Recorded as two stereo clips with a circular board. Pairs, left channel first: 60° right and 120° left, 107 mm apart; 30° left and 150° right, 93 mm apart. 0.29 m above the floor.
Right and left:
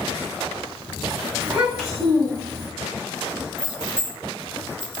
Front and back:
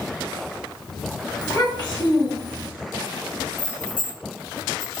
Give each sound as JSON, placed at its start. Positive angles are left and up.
{"t": 1.4, "sound": "a child speaking", "azimuth_deg": 55, "distance_m": 1.5}
{"t": 3.6, "sound": "keys jangling", "azimuth_deg": 50, "distance_m": 1.5}